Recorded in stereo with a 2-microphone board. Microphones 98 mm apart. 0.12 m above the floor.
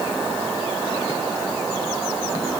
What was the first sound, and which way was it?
Only background noise.